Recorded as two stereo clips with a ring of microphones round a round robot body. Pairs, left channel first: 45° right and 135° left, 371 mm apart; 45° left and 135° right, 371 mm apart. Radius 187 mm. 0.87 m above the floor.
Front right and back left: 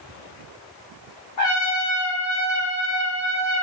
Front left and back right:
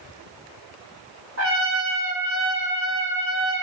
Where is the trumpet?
75° right, 1.5 m.